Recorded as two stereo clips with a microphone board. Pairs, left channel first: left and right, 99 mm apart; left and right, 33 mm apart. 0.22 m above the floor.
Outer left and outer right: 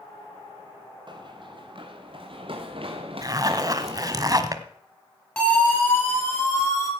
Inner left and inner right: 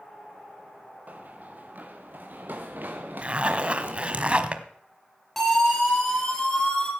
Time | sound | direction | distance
1.1 | running footsteps | 50° right (ahead or behind) | 1.9 m
3.2 | a zipper | 35° right (ahead or behind) | 1.1 m
5.4 | a siren | 10° left (ahead or behind) | 3.5 m